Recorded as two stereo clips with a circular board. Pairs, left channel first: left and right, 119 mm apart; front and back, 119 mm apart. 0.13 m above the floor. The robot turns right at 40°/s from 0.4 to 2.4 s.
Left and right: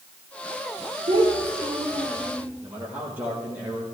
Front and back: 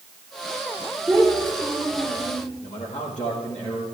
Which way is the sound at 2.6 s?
15° right.